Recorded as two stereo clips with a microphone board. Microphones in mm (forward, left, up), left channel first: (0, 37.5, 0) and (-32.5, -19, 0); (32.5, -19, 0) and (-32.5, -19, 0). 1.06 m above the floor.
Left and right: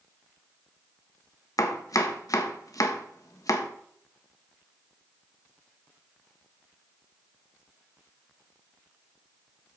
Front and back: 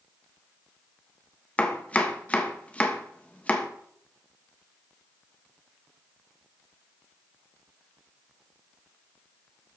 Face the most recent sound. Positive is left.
turn(degrees=65)